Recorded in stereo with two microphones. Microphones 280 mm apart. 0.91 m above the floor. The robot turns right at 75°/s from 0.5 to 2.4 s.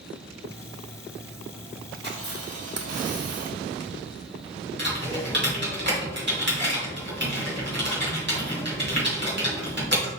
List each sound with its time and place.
1.9 s a camera shutter: 150° right, 1.1 m; by 3.9 s 115° right, 1.1 m
4.8 s typing on a keyboard: 40° right (ahead or behind), 2.5 m